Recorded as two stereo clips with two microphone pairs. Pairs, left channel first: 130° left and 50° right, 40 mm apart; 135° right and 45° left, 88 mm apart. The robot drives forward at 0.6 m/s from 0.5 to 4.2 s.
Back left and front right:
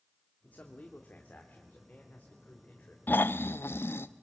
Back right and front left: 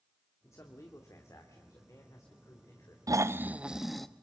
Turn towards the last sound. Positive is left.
turn(degrees=145)